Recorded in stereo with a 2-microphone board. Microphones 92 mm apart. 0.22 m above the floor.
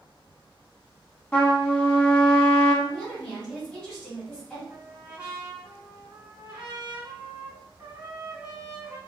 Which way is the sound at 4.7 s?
20° right (ahead or behind).